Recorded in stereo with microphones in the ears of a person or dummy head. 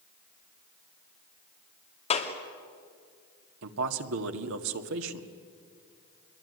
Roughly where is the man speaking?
Right.